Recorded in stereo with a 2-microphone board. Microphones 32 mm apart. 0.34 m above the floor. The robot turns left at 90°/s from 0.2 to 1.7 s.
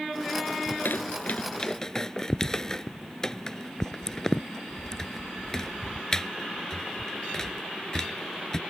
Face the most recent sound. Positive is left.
turn(degrees=20)  # may be behind; listen again after turning